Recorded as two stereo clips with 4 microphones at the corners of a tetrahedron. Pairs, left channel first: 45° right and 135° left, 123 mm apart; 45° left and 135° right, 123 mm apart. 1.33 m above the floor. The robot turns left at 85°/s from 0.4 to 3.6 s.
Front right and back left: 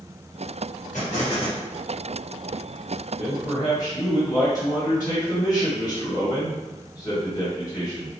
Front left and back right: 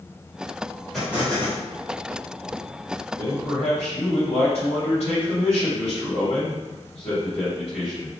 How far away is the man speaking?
About 0.9 m.